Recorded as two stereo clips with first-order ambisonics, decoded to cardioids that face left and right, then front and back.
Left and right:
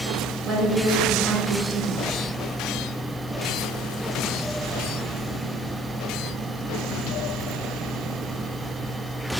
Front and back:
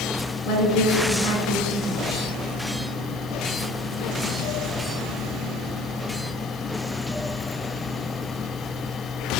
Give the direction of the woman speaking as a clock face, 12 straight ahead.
1 o'clock.